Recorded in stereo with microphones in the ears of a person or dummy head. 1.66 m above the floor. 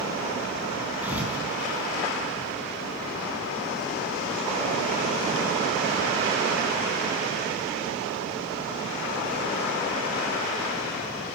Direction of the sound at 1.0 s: 5° right (ahead or behind).